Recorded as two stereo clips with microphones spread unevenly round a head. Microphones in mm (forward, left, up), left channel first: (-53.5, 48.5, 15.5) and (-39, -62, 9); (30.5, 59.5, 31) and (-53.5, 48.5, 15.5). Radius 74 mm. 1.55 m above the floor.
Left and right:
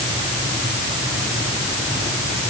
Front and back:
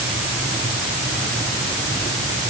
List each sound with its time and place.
Only background noise.